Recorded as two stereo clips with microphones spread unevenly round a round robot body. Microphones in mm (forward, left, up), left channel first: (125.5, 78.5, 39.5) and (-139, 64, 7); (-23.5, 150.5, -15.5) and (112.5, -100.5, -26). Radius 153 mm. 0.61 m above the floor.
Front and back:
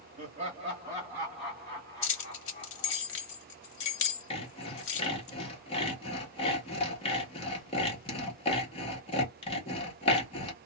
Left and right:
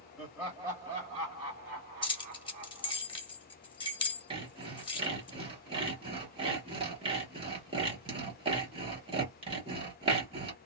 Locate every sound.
0.2 s laughter: 145° right, 1.2 m; by 3.0 s 55° right, 1.5 m
2.0 s keys jangling: 45° left, 0.8 m
4.3 s sawing: 45° right, 1.0 m